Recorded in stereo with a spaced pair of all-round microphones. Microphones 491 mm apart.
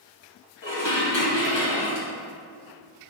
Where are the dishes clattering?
60° left (ahead or behind), 1.3 m.